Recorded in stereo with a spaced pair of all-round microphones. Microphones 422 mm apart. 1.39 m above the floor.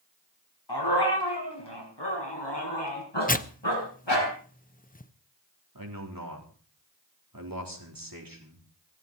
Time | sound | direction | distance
0.7 | a dog barking | 65° left (ahead or behind) | 5.5 m
3.3 | tearing paper | 20° left (ahead or behind) | 0.8 m
5.8 | a man speaking | 50° right (ahead or behind) | 4 m